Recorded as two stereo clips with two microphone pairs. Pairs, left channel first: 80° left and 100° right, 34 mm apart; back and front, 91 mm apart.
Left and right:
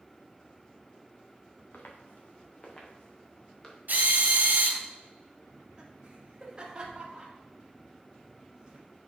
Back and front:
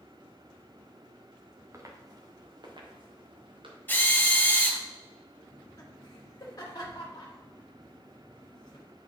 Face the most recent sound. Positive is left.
turn(degrees=-155)